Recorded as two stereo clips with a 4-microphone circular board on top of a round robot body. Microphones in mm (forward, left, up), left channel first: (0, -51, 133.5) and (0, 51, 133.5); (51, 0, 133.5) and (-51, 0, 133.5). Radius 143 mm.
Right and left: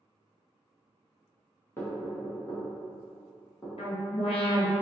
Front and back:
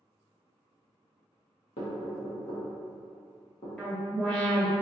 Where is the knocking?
20° right, 1.5 m.